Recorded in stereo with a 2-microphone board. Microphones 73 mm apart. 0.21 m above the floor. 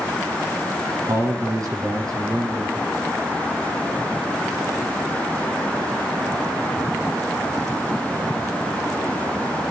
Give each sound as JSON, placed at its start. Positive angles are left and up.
{"t": 1.1, "sound": "a man speaking", "side_deg": -55, "distance_m": 2.5}